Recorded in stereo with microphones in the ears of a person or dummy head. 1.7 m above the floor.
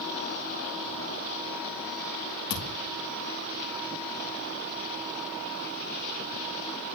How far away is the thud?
About 2.5 m.